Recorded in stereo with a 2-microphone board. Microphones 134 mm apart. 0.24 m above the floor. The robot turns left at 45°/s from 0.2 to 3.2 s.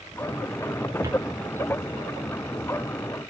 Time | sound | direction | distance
1.0 | footsteps | 20° right (ahead or behind) | 1.9 m